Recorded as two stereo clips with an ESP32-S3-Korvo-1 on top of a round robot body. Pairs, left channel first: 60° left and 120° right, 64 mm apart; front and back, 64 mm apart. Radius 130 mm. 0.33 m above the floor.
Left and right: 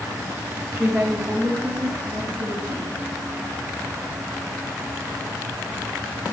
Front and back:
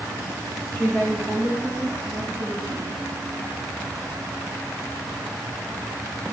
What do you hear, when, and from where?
0.7 s a woman speaking: 60° right, 2.5 m; by 2.9 s 85° right, 4 m